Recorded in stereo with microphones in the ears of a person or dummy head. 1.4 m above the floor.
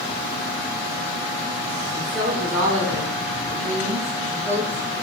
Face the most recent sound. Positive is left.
turn(degrees=-35)  # may be behind; listen again after turning